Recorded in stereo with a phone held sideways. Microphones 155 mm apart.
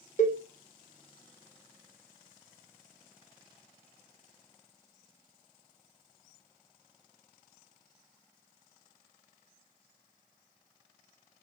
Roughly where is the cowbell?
Left.